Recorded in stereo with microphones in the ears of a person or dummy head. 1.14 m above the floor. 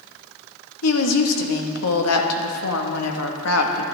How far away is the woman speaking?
About 1.3 m.